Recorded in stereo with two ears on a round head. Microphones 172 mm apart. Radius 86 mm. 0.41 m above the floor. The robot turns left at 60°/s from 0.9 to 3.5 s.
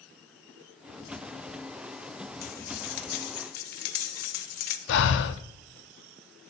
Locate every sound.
2.4 s cutlery clinking: 130° left, 0.8 m; by 4.8 s 65° left, 0.8 m
4.9 s breathing: 65° left (ahead or behind), 0.6 m